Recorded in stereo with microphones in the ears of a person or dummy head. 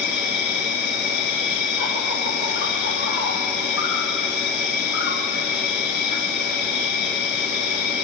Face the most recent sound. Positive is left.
turn(degrees=55)  # may be behind; listen again after turning